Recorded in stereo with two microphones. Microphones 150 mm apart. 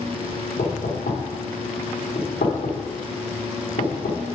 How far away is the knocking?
About 1.9 m.